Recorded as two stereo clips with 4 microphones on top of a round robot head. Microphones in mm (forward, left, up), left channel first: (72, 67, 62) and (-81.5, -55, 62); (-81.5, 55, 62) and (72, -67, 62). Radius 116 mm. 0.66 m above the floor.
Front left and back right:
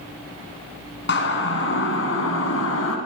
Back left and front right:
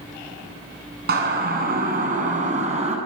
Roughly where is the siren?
Ahead.